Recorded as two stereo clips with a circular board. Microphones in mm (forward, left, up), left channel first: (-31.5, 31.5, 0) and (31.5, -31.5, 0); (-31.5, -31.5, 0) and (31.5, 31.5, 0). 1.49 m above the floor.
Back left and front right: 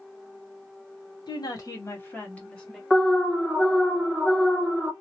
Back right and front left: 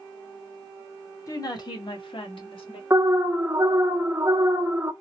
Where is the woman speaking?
175° left, 1.0 m; by 2.8 s 140° right, 1.5 m.